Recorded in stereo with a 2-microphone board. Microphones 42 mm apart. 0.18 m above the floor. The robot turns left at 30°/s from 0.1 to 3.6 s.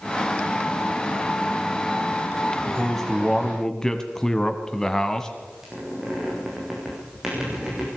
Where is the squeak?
10° right (ahead or behind), 8 m.